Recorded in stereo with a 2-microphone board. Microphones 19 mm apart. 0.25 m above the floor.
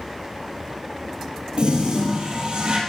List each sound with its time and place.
1.6 s a toilet flushing: 60° right (ahead or behind), 3.5 m